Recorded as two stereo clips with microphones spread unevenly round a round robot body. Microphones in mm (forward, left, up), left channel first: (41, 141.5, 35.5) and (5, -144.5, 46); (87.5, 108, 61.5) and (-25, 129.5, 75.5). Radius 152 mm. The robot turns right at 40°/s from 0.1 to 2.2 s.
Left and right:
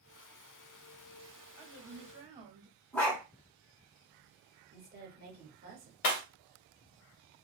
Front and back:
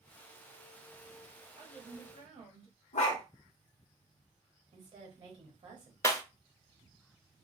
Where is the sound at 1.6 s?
Straight behind, 1.0 m; by 2.8 s 155° right, 1.0 m.